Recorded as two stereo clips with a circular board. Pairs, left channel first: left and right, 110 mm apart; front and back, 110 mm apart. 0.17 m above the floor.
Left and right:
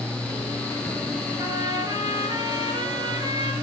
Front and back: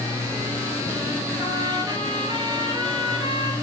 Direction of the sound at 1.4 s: 140° right.